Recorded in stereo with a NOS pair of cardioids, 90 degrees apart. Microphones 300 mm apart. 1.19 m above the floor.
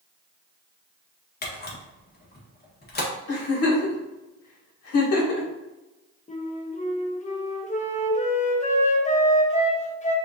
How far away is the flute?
About 1.0 m.